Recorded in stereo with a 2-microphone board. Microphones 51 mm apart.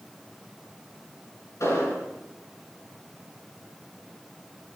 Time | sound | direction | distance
1.6 | an explosion | 75° left (ahead or behind) | 6.5 m